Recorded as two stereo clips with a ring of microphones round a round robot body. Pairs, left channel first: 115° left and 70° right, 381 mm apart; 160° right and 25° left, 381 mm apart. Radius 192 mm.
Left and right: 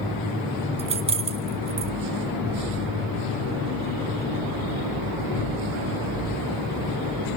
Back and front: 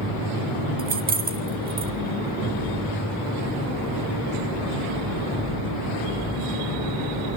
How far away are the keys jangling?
About 0.8 m.